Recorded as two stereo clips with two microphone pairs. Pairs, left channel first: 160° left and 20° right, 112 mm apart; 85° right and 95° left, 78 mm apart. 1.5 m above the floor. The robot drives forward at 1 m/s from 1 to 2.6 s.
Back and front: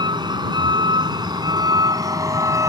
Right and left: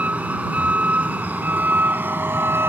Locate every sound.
0.0 s a vehicle: 25° left; by 2.7 s 40° left